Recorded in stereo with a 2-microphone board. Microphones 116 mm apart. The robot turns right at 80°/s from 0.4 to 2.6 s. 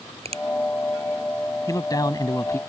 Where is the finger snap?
55° right (ahead or behind).